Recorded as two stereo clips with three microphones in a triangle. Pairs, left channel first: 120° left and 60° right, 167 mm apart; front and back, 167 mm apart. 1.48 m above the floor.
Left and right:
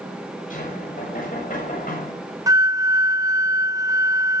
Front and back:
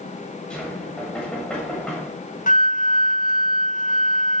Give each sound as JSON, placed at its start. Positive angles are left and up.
{"t": 0.5, "sound": "knocking", "azimuth_deg": 85, "distance_m": 7.5}
{"t": 2.5, "sound": "a flute", "azimuth_deg": 5, "distance_m": 0.9}